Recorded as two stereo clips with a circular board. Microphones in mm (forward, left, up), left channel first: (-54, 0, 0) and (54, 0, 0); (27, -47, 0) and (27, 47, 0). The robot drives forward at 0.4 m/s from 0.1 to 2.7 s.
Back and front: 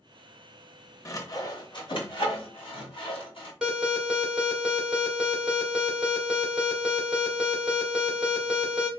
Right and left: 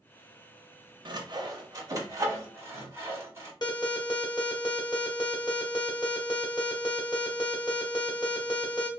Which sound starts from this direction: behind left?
Sawing, at 1.1 s.